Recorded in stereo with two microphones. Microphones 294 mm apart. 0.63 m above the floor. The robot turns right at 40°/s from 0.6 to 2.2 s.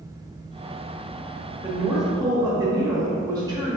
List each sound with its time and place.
1.6 s a woman speaking: 5° right (ahead or behind), 1.0 m; by 3.8 s 15° right (ahead or behind), 1.0 m